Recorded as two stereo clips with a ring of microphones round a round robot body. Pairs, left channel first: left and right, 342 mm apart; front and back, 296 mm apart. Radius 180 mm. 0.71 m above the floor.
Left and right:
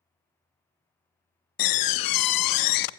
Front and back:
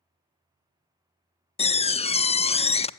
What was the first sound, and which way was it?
A door slam, 70° left.